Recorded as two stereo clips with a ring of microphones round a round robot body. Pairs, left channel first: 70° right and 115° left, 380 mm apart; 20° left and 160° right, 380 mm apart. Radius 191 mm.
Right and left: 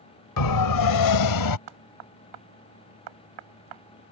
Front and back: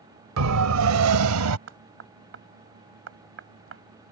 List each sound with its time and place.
0.4 s a siren: 105° right; by 1.6 s 110° right
1.7 s knocking: 145° left